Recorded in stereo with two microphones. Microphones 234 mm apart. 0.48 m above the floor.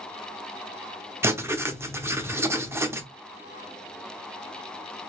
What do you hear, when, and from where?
1.2 s writing: 10° right (ahead or behind), 0.7 m